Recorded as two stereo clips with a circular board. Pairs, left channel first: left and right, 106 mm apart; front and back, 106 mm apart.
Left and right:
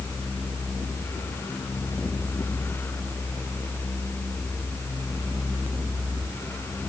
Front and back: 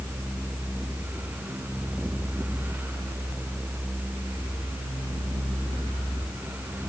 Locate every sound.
Only background noise.